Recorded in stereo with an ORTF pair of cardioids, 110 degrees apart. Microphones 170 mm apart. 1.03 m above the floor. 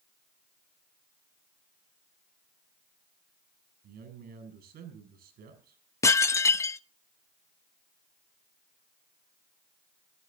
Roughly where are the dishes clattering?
Ahead.